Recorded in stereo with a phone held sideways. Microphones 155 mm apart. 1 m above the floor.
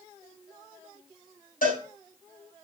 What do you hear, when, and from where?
1.6 s a cowbell: 70° left (ahead or behind), 7 m